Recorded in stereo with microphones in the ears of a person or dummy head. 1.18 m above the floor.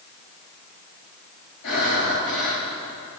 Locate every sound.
1.6 s breathing: 80° left, 6 m